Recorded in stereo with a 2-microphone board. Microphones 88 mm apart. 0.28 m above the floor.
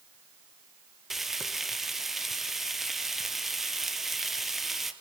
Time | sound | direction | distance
1.1 | frying | 5° right (ahead or behind) | 1.1 m